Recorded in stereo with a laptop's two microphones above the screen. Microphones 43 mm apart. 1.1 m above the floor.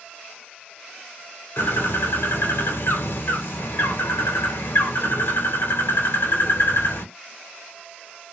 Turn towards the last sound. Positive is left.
turn(degrees=65)  # may be behind; listen again after turning